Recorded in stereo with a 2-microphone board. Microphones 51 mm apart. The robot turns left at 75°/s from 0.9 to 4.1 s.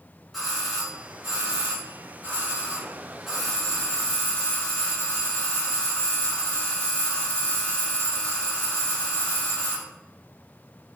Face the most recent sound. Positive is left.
turn(degrees=125)